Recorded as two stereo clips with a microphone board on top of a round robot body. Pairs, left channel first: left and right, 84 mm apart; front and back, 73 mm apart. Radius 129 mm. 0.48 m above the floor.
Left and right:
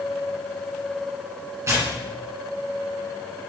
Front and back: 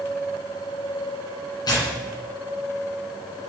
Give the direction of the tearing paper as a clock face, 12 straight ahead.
1 o'clock.